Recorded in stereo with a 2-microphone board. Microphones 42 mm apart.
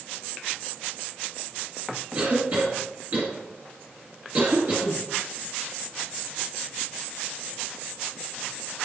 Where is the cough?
40° right (ahead or behind), 1.8 m.